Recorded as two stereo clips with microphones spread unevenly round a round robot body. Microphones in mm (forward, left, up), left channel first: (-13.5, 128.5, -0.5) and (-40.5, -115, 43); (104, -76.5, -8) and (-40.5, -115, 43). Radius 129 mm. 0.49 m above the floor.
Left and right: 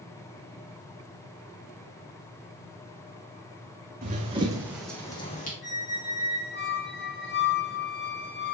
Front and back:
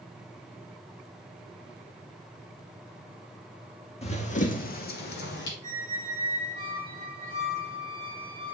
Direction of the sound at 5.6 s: 130° left.